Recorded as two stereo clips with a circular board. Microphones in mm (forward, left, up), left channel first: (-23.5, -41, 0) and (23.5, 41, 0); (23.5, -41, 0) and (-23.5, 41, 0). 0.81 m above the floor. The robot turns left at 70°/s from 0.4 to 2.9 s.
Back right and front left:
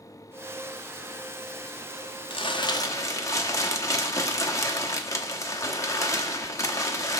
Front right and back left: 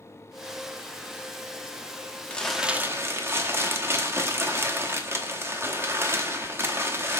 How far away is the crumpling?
About 1.0 m.